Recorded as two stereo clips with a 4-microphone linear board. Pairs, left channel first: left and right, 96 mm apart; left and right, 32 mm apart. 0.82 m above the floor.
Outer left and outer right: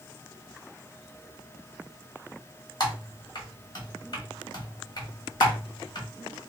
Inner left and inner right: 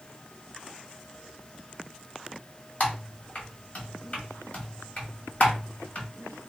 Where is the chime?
No chime in this recording.